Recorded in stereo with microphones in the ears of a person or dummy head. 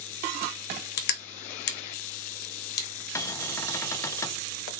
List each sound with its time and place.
1.0 s crushing: 50° left (ahead or behind), 0.7 m
3.1 s a cupboard door: 10° left (ahead or behind), 0.5 m